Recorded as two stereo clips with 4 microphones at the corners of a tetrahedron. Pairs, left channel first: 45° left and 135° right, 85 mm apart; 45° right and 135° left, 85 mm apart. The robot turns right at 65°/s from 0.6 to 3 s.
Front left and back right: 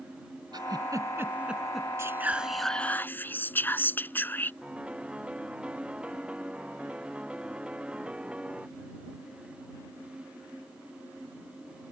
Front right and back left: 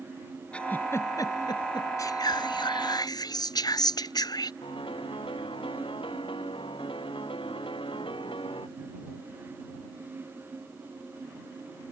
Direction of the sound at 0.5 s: 120° right.